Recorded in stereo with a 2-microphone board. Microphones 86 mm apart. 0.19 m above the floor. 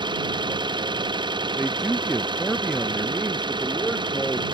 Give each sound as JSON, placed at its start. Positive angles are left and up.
{"t": 0.0, "sound": "an engine running", "side_deg": -70}
{"t": 1.6, "sound": "a man speaking", "side_deg": 0}